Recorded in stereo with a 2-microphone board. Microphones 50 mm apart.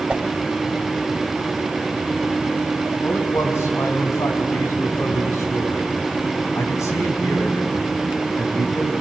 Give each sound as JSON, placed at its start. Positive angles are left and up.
{"t": 0.1, "sound": "a whoosh", "side_deg": -20, "distance_m": 1.4}
{"t": 3.0, "sound": "a man speaking", "side_deg": 80, "distance_m": 4.5}